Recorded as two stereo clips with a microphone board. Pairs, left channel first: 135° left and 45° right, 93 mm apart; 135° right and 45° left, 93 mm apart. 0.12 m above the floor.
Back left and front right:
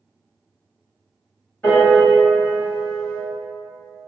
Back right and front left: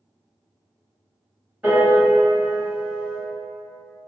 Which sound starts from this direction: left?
A piano, at 1.6 s.